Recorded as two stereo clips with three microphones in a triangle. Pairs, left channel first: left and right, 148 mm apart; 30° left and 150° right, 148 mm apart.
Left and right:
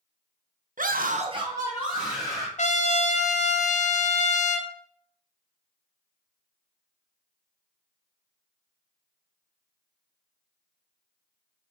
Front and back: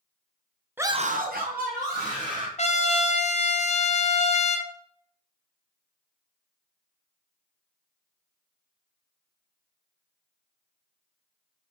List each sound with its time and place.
0.8 s a scream: 70° right, 0.5 m; by 2.5 s straight behind, 1.8 m
2.6 s a trumpet: 65° left, 0.5 m